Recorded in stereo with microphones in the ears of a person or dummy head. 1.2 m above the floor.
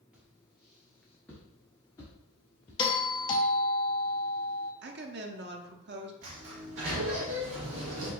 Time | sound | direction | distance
0.1 | footsteps | 5° right (ahead or behind) | 1.7 m
2.8 | a doorbell | 25° left (ahead or behind) | 0.6 m
4.8 | a woman speaking | 50° right (ahead or behind) | 0.8 m
6.2 | a sliding door | 60° right (ahead or behind) | 1.6 m